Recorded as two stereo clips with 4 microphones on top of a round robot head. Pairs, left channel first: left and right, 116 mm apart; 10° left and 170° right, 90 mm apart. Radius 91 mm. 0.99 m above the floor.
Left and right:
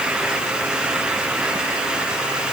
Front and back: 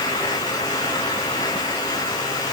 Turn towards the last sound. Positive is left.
No sound to turn to.